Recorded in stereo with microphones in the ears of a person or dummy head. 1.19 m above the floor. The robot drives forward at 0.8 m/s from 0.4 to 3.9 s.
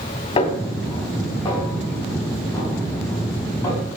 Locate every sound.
0.4 s a snare drum: 30° left (ahead or behind), 1.8 m; by 3.8 s 10° left (ahead or behind), 4.5 m